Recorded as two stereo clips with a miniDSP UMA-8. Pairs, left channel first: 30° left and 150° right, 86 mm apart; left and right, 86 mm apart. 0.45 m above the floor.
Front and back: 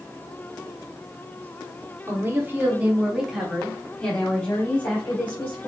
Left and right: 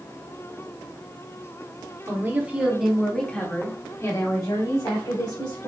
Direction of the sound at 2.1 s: 120° right.